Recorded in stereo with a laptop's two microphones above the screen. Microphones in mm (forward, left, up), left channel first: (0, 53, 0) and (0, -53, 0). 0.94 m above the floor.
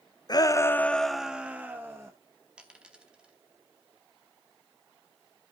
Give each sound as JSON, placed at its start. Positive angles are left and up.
{"t": 0.3, "sound": "a shout", "side_deg": 40, "distance_m": 0.6}
{"t": 2.6, "sound": "a dropped coin", "side_deg": -10, "distance_m": 0.9}